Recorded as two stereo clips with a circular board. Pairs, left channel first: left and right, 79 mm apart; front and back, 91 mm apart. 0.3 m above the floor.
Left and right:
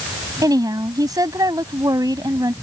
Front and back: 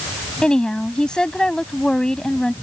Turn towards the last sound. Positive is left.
turn(degrees=-80)